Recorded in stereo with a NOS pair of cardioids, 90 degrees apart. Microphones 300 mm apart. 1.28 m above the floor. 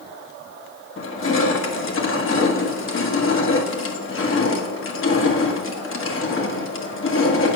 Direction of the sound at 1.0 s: 45° left.